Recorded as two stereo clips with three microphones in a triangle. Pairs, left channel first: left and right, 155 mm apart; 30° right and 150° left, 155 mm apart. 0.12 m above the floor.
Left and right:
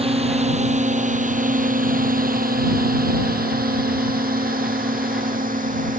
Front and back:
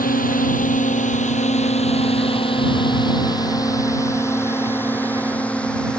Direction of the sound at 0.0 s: 45° right.